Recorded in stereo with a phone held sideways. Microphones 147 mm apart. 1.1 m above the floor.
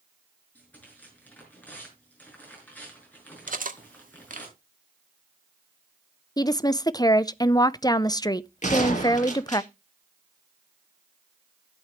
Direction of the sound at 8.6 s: 55° left (ahead or behind).